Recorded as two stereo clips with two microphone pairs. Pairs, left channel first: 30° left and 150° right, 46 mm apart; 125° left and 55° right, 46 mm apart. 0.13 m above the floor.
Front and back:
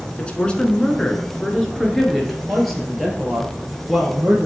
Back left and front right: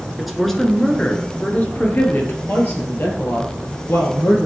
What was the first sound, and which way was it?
A woman speaking, 25° left.